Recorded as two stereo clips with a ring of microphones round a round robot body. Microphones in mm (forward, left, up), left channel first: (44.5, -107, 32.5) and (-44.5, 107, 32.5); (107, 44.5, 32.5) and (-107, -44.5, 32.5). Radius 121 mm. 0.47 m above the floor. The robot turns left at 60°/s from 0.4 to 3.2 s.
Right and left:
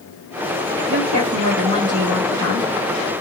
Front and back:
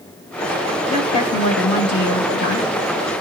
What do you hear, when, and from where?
0.9 s a woman speaking: 100° left, 2.5 m; by 2.7 s 5° right, 2.5 m